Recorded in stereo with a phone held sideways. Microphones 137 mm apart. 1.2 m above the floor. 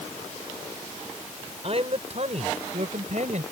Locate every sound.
1.6 s a man speaking: 50° right (ahead or behind); by 3.4 s 60° right (ahead or behind)